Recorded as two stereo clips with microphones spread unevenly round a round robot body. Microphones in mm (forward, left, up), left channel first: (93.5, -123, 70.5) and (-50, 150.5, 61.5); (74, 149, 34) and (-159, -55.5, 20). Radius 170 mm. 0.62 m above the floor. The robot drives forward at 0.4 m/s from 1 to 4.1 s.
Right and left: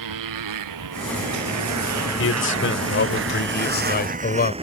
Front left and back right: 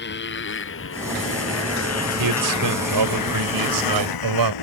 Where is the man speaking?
115° right; by 4.5 s 125° right.